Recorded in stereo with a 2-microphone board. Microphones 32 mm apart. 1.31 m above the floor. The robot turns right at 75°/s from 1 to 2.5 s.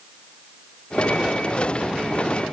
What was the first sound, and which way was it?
Only background noise.